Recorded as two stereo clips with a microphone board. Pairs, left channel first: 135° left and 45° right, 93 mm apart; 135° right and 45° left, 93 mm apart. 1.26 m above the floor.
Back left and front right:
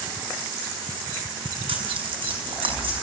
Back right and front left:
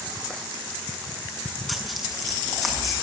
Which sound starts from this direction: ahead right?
Tearing paper, at 1.7 s.